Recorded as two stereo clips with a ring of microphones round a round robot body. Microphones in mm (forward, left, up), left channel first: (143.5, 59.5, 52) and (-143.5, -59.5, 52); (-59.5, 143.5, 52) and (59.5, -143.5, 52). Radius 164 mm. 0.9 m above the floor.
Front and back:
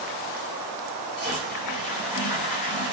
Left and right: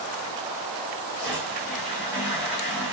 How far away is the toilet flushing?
About 2 m.